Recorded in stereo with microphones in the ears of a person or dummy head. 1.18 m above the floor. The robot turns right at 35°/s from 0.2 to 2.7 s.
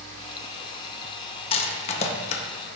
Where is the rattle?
25° left (ahead or behind), 0.5 m; by 2.4 s 30° left (ahead or behind), 0.5 m.